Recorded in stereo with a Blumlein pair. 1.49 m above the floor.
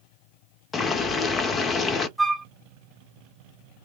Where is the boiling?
20° left, 0.7 m.